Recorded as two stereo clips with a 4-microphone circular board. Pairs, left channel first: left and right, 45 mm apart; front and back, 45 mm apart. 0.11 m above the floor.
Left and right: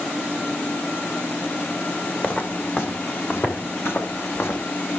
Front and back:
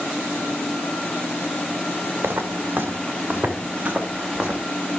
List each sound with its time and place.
2.2 s footsteps: 140° left, 2.5 m; by 4.6 s 115° left, 2.5 m